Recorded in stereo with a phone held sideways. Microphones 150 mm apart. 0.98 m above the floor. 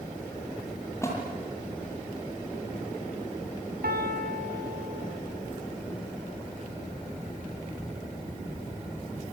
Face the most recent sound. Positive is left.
turn(degrees=-80)